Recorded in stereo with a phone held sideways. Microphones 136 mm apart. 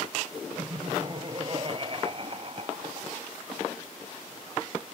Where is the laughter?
35° right (ahead or behind); by 3.2 s 45° right (ahead or behind).